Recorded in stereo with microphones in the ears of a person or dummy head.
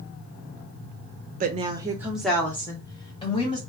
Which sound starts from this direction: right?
A woman speaking, at 1.4 s.